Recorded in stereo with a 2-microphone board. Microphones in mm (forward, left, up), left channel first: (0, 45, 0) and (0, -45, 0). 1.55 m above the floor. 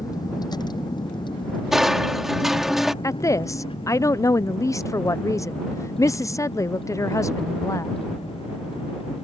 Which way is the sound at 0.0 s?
45° left (ahead or behind).